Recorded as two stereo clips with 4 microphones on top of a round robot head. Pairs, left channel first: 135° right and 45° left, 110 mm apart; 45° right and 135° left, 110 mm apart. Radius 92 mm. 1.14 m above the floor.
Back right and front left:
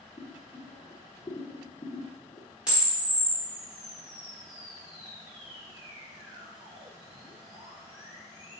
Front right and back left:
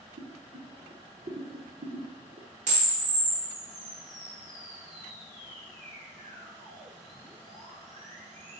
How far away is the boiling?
About 0.5 m.